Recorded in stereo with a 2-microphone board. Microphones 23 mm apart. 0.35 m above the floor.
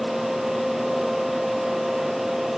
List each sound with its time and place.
Only background noise.